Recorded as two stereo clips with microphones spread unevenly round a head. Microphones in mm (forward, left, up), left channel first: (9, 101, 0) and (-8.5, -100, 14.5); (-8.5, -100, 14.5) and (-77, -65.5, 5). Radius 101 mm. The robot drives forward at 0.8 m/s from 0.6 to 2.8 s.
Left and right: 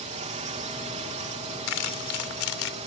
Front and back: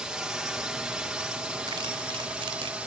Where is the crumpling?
95° left; by 2.8 s 115° left.